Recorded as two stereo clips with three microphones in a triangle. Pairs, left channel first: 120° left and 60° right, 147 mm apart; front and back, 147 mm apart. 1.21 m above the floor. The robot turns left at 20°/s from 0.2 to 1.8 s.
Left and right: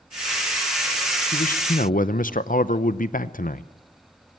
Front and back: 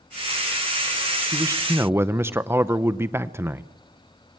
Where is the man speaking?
115° left, 0.7 m; by 3.7 s 105° left, 0.7 m.